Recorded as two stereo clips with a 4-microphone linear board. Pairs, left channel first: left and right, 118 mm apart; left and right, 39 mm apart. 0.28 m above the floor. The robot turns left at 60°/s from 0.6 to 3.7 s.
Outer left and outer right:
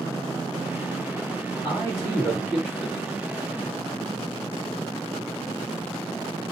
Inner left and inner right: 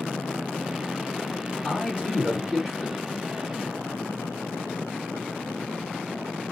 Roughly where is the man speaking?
Left.